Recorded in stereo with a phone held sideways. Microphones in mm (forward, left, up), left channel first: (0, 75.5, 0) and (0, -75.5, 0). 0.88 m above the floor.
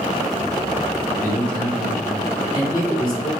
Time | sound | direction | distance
1.2 | a man speaking | centre (ahead or behind) | 2 m